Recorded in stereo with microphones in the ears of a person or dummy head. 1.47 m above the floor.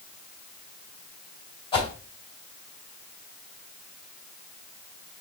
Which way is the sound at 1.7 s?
30° left (ahead or behind).